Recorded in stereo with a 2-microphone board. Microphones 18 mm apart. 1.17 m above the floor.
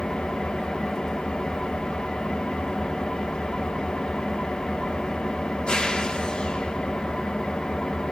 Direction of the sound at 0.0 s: 75° left (ahead or behind).